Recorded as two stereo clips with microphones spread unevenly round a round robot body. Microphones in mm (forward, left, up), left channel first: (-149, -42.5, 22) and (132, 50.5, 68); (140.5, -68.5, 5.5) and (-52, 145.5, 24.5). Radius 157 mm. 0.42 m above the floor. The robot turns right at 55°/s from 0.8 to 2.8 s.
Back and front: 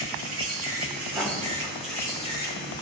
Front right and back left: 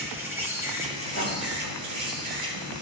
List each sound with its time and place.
0.0 s an insect: 50° left, 3.5 m; by 2.8 s 160° left, 3.5 m
1.1 s writing: 100° left, 3 m; by 1.4 s 115° left, 3 m